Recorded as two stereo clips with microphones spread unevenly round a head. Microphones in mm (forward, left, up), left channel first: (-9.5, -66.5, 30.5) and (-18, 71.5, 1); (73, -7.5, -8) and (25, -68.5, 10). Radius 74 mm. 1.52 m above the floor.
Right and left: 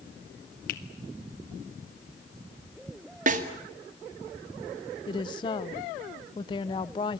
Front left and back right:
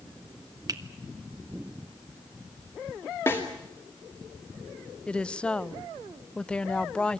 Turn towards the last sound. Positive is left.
turn(degrees=-30)